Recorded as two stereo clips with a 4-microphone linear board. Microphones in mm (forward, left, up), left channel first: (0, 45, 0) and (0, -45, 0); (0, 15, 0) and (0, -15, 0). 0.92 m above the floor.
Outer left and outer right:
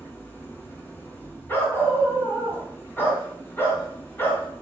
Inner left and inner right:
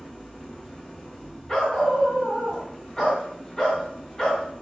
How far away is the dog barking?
About 2.5 m.